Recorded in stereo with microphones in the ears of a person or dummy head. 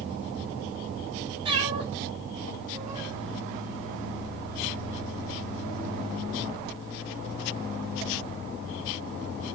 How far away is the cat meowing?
About 1.5 m.